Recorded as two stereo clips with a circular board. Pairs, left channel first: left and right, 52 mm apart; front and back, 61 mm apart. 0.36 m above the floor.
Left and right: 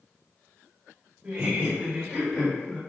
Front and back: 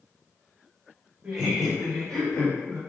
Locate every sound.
1.2 s laughter: 110° right, 1.7 m; by 2.8 s 10° left, 1.5 m